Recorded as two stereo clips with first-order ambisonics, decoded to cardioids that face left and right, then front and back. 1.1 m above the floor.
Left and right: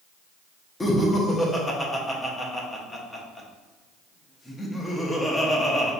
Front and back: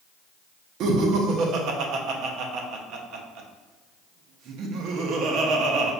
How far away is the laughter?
About 0.6 m.